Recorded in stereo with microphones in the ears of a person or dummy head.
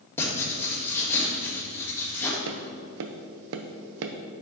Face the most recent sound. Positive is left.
turn(degrees=-65)  # may be behind; listen again after turning